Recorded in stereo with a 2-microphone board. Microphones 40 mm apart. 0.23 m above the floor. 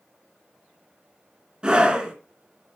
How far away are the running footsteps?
I don't hear running footsteps.